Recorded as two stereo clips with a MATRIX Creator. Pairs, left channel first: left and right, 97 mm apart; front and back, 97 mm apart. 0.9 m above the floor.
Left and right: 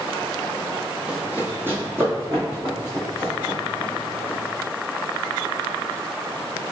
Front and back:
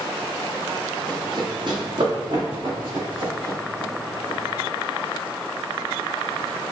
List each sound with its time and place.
1.1 s running footsteps: 165° right, 1.2 m; by 4.4 s 145° right, 4.5 m